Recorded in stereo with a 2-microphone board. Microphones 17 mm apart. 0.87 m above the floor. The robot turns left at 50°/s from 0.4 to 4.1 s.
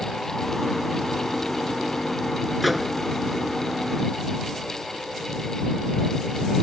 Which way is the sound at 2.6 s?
Centre (ahead or behind).